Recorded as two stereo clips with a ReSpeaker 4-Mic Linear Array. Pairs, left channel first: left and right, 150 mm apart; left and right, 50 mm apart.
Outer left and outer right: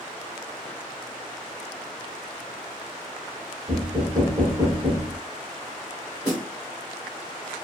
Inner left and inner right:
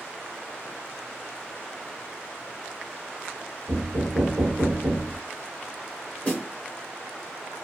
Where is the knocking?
30° right (ahead or behind), 1.1 m.